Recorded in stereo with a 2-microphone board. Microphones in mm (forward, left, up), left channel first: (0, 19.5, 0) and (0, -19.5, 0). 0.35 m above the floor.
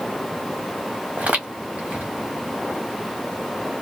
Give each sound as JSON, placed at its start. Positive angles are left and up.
{"t": 1.2, "sound": "footsteps", "side_deg": -45, "distance_m": 1.1}